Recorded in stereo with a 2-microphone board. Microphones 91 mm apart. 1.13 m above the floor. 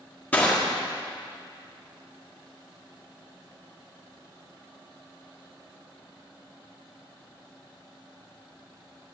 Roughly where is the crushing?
Centre.